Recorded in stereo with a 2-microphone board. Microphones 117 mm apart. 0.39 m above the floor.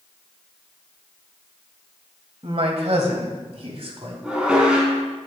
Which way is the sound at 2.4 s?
55° right (ahead or behind).